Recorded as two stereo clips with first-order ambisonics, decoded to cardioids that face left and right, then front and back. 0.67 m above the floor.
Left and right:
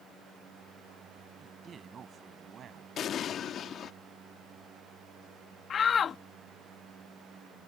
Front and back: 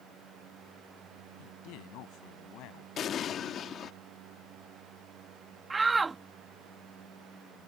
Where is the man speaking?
20° right; by 2.9 s 30° right.